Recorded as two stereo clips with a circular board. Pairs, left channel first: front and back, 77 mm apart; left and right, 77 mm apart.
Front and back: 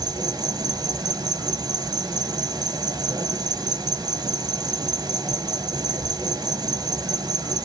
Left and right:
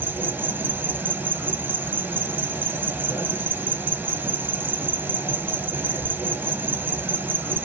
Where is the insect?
150° right, 0.8 m.